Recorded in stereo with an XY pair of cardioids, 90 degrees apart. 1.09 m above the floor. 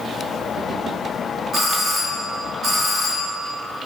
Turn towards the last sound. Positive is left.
turn(degrees=-50)